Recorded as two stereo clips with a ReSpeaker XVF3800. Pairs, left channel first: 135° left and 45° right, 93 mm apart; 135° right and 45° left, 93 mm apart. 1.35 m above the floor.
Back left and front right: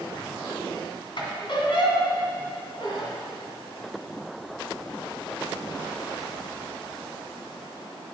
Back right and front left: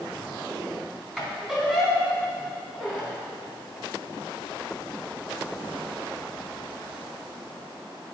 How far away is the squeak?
About 2 m.